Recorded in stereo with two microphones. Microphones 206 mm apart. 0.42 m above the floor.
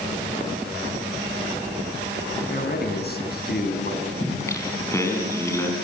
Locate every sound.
2.5 s a man speaking: 50° left (ahead or behind), 4.5 m
4.2 s singing: 15° left (ahead or behind), 4.5 m